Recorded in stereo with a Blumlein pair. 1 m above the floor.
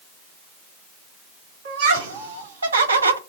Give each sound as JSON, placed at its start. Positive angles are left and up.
{"t": 1.6, "sound": "laughter", "azimuth_deg": -65, "distance_m": 1.7}